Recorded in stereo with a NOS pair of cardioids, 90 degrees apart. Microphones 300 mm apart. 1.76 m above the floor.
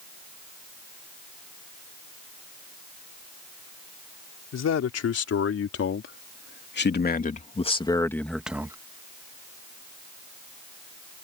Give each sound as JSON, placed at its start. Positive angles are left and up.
{"t": 4.5, "sound": "a man speaking", "azimuth_deg": 60}